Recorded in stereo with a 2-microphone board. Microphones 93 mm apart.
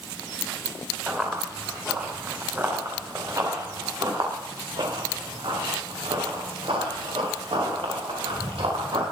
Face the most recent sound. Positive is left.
turn(degrees=-85)